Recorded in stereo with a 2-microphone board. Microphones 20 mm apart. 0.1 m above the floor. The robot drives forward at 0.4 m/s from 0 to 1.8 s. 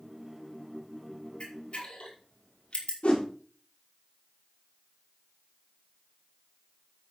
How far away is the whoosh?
About 5.5 m.